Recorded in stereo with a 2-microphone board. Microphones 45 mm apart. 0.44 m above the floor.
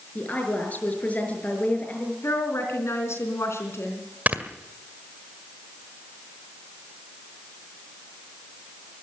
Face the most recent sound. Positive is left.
turn(degrees=-35)  # may be behind; listen again after turning